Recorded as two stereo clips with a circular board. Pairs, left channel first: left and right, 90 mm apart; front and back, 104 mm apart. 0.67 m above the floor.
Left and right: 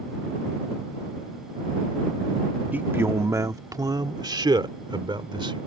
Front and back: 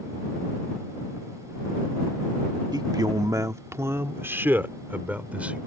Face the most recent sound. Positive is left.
turn(degrees=-105)